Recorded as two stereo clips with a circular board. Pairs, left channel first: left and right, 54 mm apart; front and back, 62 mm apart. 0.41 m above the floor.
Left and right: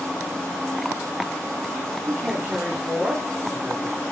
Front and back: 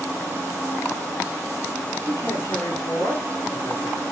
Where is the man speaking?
25° right, 5.5 m.